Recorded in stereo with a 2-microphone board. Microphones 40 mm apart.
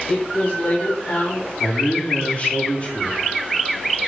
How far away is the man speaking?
About 1.3 m.